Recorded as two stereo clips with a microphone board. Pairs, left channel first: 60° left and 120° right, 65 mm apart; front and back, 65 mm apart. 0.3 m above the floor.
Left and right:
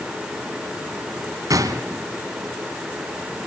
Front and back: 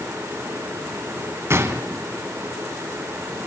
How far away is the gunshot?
About 1.7 m.